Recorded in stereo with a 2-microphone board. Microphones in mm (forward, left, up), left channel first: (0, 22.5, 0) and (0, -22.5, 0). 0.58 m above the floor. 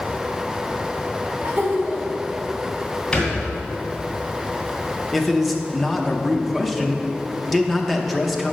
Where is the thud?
15° left (ahead or behind), 2 m.